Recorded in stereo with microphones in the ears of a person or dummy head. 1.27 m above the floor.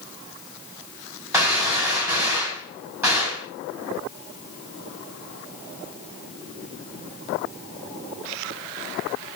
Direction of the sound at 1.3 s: 10° right (ahead or behind).